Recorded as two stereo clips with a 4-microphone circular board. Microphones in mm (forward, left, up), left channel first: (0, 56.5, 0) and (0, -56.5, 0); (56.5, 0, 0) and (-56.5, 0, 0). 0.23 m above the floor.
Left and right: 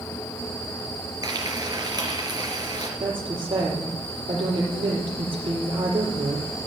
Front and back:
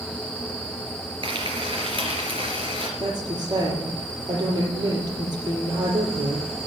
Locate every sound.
1.2 s frying: 140° right, 3 m
3.0 s a woman speaking: 130° right, 6 m